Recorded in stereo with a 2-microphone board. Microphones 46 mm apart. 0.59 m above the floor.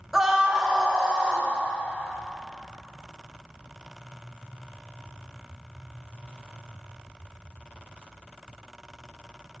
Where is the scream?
10° right (ahead or behind), 0.8 m; by 1.5 s 20° right (ahead or behind), 2 m.